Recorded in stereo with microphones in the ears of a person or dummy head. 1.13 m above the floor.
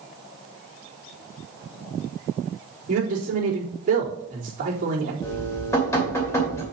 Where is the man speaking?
45° right (ahead or behind), 3.5 m.